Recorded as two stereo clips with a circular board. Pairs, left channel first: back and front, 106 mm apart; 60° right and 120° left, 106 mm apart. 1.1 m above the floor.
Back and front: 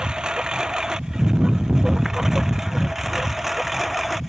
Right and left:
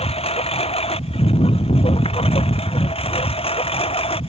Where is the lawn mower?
85° right; by 4.3 s 90° right.